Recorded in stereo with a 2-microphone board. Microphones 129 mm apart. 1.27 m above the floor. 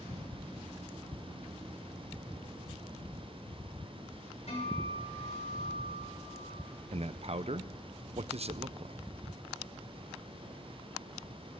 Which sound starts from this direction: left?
A guitar, at 4.5 s.